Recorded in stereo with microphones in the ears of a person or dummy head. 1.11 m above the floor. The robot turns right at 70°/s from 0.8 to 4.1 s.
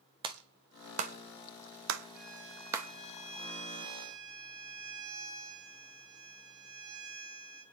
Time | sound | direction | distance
0.2 | a clap | 25° right (ahead or behind) | 1.4 m
2.1 | a violin | 10° right | 8.5 m